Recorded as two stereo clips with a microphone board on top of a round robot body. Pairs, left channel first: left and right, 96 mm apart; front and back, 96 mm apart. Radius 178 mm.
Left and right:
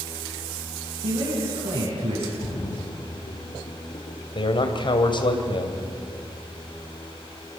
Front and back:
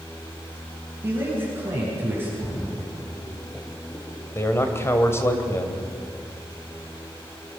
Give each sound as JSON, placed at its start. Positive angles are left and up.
{"t": 1.0, "sound": "a man speaking", "azimuth_deg": -115, "distance_m": 9.5}
{"t": 2.4, "sound": "a splash", "azimuth_deg": 70, "distance_m": 4.0}
{"t": 4.3, "sound": "a man speaking", "azimuth_deg": 60, "distance_m": 2.5}